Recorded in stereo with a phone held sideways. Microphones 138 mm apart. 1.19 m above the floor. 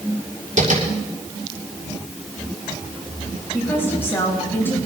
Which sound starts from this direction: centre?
A woman speaking, at 3.5 s.